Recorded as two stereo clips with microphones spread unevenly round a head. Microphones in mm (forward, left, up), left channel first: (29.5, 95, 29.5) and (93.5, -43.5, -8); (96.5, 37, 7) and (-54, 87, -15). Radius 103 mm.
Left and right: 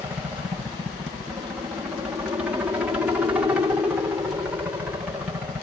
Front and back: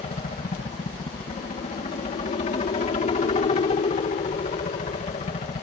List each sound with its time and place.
0.0 s a helicopter: 15° right